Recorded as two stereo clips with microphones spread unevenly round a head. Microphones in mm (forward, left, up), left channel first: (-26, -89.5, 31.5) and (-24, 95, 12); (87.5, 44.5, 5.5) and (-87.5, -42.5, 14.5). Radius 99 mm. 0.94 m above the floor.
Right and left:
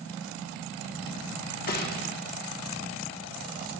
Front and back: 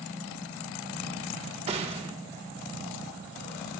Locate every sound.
1.7 s a gunshot: 105° right, 1.2 m